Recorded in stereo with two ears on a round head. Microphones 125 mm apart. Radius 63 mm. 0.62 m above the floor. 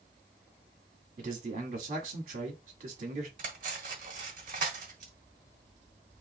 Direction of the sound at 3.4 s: 55° right (ahead or behind).